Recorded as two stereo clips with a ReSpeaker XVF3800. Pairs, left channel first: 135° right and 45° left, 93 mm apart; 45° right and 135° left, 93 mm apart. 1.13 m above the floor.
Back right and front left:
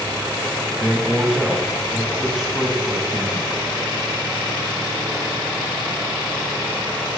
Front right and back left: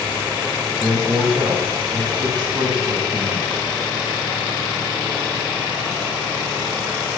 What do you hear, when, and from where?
0.7 s a man speaking: 130° left, 0.9 m